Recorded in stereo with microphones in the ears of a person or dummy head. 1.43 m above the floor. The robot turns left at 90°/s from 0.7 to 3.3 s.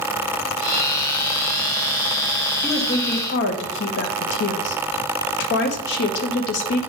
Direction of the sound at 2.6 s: 175° left.